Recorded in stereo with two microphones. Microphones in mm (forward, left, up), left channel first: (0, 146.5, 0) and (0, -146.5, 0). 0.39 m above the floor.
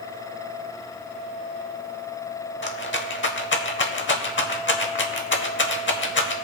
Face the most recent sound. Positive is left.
turn(degrees=40)  # may be behind; listen again after turning